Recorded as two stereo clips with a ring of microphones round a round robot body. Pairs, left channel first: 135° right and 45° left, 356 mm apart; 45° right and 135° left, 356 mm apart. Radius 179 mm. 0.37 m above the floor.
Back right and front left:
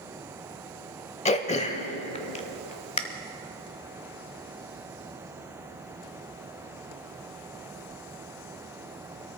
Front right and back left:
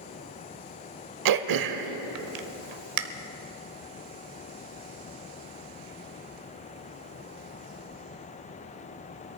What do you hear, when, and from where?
1.2 s throat clearing: 155° left, 0.8 m